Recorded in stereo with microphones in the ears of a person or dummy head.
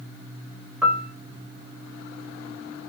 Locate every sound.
0.8 s a piano: 5° right (ahead or behind), 0.9 m